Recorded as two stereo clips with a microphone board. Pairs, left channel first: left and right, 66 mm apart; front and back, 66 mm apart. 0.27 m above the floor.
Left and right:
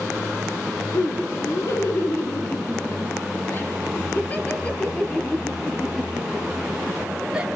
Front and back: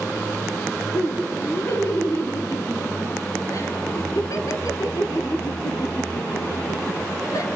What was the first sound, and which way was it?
Laughter, 50° left.